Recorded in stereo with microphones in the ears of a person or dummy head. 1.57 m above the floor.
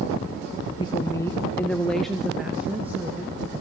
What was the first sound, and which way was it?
A woman speaking, 25° left (ahead or behind).